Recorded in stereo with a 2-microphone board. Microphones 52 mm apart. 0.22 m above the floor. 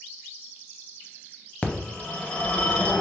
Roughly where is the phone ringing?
Left.